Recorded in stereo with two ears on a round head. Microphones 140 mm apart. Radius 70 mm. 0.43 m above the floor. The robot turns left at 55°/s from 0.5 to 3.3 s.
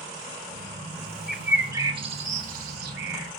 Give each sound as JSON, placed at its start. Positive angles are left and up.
{"t": 1.3, "sound": "a bird", "side_deg": 0, "distance_m": 1.8}